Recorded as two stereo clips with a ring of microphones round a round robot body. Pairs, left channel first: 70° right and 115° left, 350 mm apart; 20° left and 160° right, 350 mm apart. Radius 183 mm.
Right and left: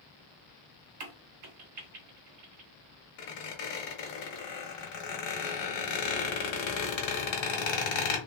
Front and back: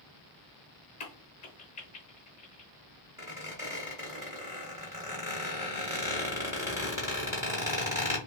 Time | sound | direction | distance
1.0 | a crack | 90° left | 0.7 m
3.2 | a squeak | 75° right | 1.1 m